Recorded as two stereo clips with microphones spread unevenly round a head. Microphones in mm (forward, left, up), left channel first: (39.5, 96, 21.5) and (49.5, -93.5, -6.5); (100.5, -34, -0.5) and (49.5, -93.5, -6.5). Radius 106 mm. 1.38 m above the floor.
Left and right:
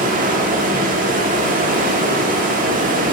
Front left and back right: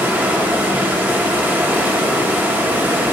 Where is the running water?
80° right, 1.0 m.